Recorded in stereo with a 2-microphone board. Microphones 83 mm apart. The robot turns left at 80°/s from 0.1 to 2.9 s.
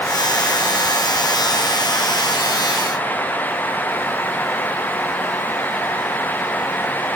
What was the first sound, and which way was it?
Only background noise.